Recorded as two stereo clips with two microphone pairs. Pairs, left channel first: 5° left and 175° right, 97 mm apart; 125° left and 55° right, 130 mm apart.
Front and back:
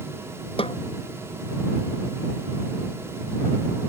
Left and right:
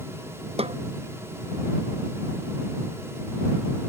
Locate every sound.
0.6 s a snare drum: 15° right